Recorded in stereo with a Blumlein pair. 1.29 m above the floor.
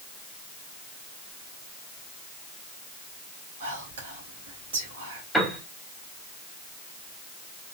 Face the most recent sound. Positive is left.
turn(degrees=0)